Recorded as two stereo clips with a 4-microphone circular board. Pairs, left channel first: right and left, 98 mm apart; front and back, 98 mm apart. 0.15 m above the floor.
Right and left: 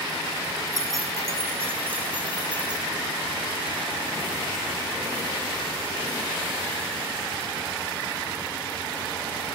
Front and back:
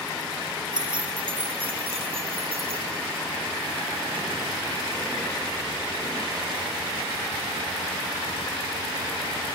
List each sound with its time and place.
0.7 s keys jangling: 145° left, 4.5 m; by 2.9 s 170° left, 5.5 m